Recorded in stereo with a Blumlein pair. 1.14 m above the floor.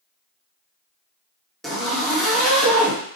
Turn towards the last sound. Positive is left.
turn(degrees=0)